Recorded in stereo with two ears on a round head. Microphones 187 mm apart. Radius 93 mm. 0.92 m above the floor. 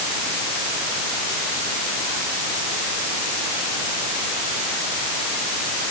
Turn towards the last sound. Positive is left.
No sound to turn to.